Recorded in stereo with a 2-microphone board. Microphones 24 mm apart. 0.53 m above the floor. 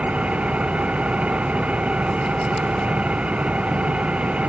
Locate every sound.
0.0 s an engine running: 65° right (ahead or behind)